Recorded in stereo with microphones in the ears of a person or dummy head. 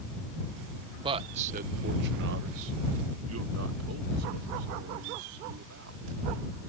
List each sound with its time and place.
1.0 s a man speaking: 30° right (ahead or behind); by 6.0 s 70° right (ahead or behind)